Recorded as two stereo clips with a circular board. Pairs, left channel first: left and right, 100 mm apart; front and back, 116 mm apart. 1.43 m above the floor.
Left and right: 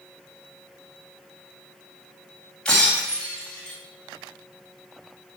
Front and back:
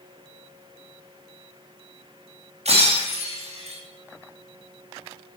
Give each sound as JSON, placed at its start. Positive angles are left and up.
{"t": 2.6, "sound": "breaking glass", "azimuth_deg": 170, "distance_m": 4.5}